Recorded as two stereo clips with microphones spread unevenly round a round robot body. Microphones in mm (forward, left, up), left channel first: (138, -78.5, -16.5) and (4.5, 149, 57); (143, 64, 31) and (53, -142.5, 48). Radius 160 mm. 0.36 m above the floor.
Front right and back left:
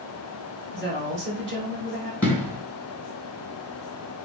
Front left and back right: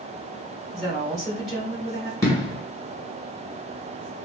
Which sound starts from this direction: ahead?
An explosion, at 2.2 s.